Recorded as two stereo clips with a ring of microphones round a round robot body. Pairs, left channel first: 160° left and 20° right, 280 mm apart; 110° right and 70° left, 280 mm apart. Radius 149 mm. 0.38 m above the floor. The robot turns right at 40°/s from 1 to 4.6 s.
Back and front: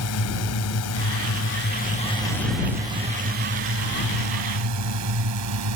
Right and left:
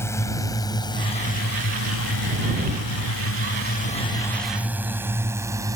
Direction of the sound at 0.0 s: 170° left.